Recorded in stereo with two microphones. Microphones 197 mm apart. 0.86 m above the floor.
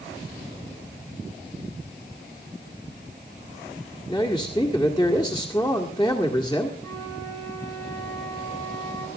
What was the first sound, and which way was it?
A man speaking, 20° left (ahead or behind).